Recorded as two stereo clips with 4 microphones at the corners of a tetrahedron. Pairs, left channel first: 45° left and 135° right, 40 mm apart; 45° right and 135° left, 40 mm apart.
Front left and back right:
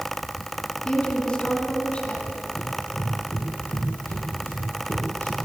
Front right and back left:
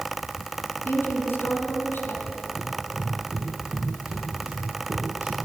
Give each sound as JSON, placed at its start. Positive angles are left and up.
{"t": 0.8, "sound": "a woman speaking", "azimuth_deg": -20, "distance_m": 5.5}
{"t": 2.6, "sound": "running footsteps", "azimuth_deg": 70, "distance_m": 8.5}